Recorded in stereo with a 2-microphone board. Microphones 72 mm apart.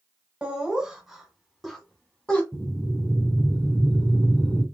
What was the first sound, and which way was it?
Laughter, 15° right (ahead or behind).